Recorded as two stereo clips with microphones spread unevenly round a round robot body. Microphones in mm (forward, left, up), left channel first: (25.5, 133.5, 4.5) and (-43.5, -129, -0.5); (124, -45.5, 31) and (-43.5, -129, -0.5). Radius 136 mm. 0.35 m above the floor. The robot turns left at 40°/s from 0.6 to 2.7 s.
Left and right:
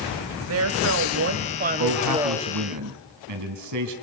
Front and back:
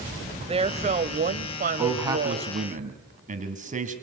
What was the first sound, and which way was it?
A woman speaking, 110° right.